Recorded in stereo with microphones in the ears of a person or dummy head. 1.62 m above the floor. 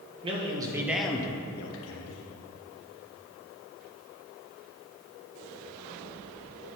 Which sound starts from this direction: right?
A man speaking, at 0.2 s.